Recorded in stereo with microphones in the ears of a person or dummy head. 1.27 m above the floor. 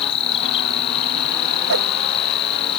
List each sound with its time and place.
0.0 s an insect: 30° left (ahead or behind)
1.7 s a whoosh: 65° right (ahead or behind)